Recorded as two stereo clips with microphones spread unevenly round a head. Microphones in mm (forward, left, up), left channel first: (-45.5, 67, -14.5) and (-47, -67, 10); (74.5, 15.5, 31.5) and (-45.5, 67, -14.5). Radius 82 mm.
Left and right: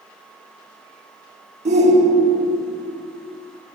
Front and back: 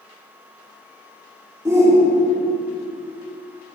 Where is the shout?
125° right, 3 m.